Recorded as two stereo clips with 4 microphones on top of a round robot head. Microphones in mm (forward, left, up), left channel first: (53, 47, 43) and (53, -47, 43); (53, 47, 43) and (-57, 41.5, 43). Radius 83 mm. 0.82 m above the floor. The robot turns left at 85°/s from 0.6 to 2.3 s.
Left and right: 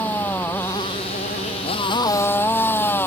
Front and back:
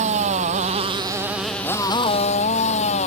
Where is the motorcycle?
165° left; by 3.1 s 20° left.